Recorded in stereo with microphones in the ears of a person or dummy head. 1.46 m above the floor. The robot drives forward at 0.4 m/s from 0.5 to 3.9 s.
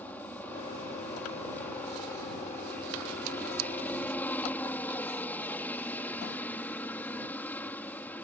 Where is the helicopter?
10° left (ahead or behind).